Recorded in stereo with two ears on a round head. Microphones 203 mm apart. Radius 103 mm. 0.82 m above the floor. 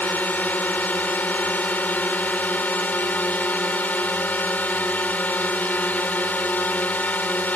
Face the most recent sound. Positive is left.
turn(degrees=5)  # may be behind; listen again after turning